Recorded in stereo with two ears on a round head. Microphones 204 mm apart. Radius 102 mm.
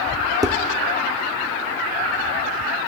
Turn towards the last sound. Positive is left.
turn(degrees=-15)  # may be behind; listen again after turning